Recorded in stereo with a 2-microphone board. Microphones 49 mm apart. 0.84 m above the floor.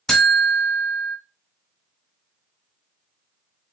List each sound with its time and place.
0.1 s a buzzer: 5° left (ahead or behind), 1.8 m